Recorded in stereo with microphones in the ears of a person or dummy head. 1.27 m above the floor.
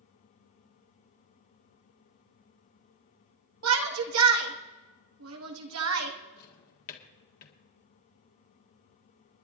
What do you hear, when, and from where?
3.6 s a shout: 75° right (ahead or behind), 1.8 m
6.4 s a drawer: 55° left (ahead or behind), 1.7 m